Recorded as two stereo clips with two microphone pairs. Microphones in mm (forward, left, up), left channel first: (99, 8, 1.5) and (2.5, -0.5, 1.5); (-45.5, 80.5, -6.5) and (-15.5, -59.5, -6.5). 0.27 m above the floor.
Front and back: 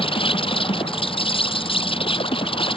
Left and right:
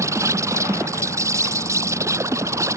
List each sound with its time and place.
0.0 s an insect: 10° right